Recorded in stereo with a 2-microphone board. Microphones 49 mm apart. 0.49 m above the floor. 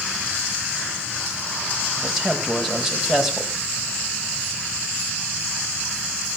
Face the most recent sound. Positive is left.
turn(degrees=-5)  # may be behind; listen again after turning